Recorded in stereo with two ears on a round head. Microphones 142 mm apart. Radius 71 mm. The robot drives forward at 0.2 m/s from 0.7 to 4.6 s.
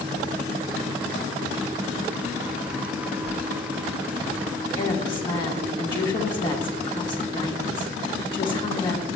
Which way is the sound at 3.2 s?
30° left (ahead or behind).